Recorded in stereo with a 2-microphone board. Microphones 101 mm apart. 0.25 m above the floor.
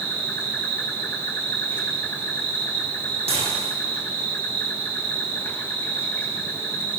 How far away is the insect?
About 5 m.